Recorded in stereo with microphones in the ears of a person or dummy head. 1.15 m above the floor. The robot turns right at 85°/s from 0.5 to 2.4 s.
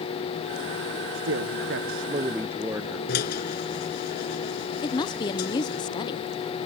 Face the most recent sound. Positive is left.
turn(degrees=20)  # may be behind; listen again after turning